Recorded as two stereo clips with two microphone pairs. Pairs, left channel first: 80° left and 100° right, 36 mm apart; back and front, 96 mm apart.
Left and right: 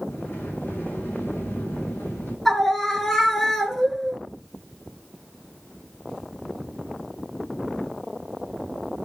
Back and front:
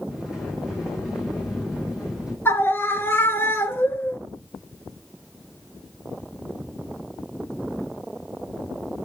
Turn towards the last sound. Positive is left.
turn(degrees=150)